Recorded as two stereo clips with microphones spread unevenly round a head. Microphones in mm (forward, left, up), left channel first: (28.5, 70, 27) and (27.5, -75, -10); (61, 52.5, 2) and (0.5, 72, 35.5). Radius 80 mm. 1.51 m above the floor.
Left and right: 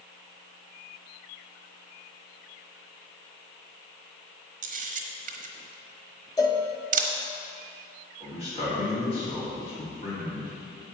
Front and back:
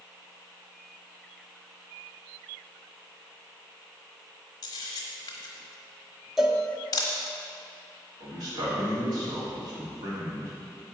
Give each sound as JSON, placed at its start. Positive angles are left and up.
{"t": 4.6, "sound": "a camera shutter", "azimuth_deg": -90, "distance_m": 1.0}
{"t": 6.4, "sound": "a cowbell", "azimuth_deg": 120, "distance_m": 0.8}
{"t": 8.2, "sound": "a man speaking", "azimuth_deg": 150, "distance_m": 4.0}